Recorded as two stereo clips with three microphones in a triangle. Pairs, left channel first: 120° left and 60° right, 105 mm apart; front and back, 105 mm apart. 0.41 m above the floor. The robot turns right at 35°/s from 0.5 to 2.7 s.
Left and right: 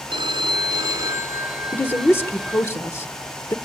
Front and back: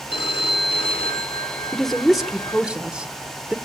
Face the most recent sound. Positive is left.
turn(degrees=115)